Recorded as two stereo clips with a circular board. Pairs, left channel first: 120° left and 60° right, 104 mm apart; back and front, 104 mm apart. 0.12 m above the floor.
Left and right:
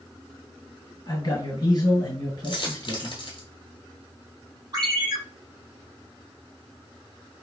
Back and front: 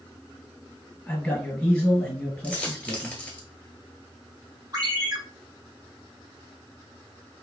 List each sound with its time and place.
1.1 s a man speaking: 105° left, 1.6 m
2.4 s a dropped coin: 105° left, 1.0 m
4.7 s a ringtone: 30° right, 1.4 m